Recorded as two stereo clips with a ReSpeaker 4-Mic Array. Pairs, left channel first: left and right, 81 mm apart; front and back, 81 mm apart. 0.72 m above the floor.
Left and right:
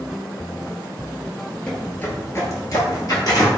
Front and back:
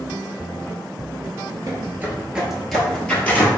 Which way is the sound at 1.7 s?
160° left.